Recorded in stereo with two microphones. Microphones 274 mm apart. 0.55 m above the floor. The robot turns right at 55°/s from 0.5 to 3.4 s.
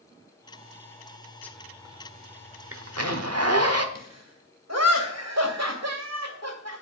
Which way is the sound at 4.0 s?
70° right (ahead or behind).